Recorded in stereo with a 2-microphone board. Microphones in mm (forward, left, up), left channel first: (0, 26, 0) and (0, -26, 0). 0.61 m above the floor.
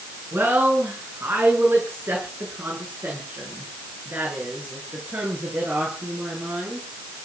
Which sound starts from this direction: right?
A woman speaking, at 0.3 s.